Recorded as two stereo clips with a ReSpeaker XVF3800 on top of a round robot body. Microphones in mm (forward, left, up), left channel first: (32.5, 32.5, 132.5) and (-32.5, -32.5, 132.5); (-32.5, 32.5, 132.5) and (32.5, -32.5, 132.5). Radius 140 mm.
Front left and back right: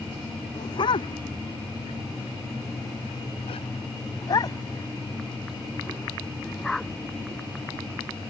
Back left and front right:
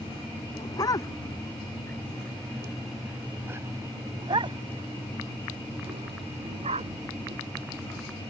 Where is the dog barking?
85° left; by 7.9 s 45° right.